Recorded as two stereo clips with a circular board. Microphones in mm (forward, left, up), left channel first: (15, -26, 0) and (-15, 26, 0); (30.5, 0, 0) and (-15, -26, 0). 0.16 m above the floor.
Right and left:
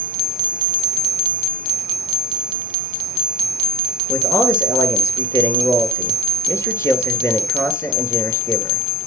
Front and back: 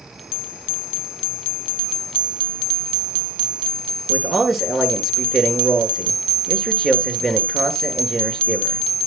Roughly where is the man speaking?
Ahead right.